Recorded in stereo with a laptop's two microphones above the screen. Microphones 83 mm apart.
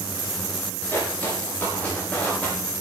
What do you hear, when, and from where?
0.9 s footsteps: 25° left (ahead or behind), 7.5 m; by 2.5 s 15° left (ahead or behind), 8 m